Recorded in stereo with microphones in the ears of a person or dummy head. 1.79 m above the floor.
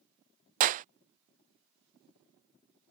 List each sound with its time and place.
0.6 s a clap: 45° right (ahead or behind)